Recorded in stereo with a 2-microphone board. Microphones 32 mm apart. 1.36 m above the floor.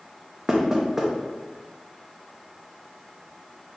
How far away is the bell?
No bell in this recording.